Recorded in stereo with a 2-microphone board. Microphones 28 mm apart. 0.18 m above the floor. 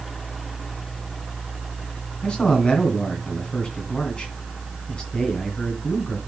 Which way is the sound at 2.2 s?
30° left (ahead or behind).